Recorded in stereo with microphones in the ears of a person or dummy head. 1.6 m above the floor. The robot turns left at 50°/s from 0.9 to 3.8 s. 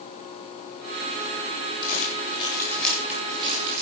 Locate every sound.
1.8 s crumpling: 55° left (ahead or behind), 8 m; by 3.8 s 45° right (ahead or behind), 8 m